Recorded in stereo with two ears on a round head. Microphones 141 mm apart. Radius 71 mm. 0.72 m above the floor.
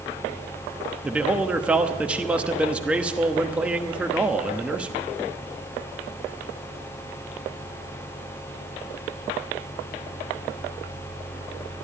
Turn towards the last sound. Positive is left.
turn(degrees=-10)  # may be behind; listen again after turning